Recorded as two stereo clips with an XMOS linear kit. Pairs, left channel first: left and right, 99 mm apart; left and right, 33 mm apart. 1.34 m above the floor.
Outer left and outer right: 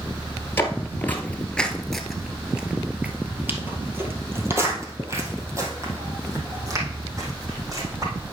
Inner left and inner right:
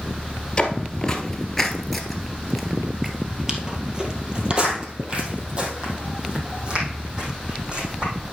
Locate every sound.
0.6 s footsteps: 25° left (ahead or behind), 1.5 m; by 8.1 s 35° right (ahead or behind), 4 m